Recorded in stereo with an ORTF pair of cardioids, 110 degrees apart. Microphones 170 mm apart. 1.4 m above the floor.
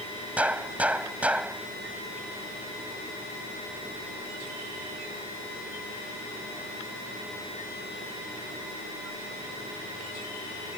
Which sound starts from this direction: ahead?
A gunshot, at 0.4 s.